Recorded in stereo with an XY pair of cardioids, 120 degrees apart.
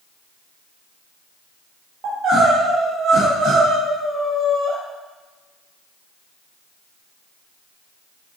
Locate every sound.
2.0 s crying: 65° right, 1.6 m